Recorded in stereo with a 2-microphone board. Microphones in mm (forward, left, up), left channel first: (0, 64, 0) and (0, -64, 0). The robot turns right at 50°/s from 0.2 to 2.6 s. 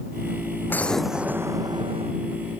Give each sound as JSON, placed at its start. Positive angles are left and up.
{"t": 0.7, "sound": "an explosion", "azimuth_deg": 165}